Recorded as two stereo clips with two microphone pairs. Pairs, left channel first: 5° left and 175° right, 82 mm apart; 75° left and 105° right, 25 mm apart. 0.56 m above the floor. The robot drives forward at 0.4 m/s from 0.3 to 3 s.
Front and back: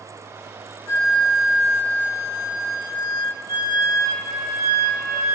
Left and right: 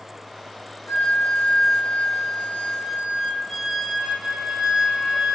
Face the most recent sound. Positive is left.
turn(degrees=135)